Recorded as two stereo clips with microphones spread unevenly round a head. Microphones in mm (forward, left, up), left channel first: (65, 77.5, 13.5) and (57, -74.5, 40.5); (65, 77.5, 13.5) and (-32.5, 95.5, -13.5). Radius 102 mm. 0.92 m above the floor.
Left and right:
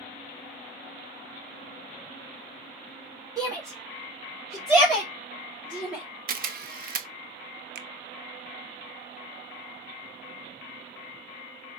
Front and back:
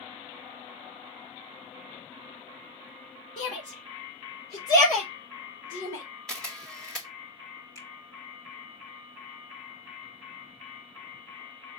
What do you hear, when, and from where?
3.4 s a shout: 20° right, 1.8 m; by 6.0 s 15° right, 3 m
6.3 s a camera shutter: 110° right, 0.6 m
7.8 s a finger snap: 90° right, 0.5 m